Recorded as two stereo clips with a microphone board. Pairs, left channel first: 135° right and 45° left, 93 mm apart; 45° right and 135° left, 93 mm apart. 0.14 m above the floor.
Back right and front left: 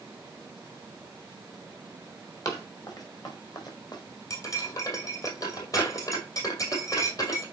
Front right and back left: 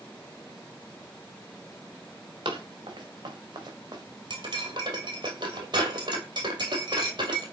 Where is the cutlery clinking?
175° left, 2.5 m.